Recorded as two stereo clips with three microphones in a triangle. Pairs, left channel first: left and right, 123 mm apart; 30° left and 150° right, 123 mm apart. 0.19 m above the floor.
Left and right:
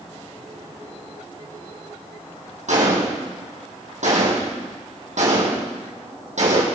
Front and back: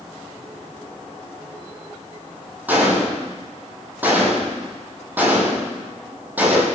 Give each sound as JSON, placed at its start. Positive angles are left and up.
{"t": 2.7, "sound": "a gunshot", "azimuth_deg": -75, "distance_m": 4.0}